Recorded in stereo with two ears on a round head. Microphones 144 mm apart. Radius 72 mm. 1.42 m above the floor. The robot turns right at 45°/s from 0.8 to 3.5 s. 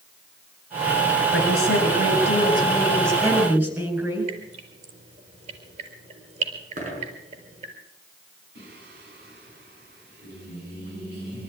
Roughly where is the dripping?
Right.